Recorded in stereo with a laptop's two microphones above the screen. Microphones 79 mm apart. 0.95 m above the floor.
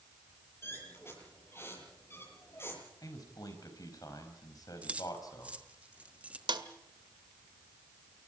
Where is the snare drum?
70° right (ahead or behind), 1.7 m.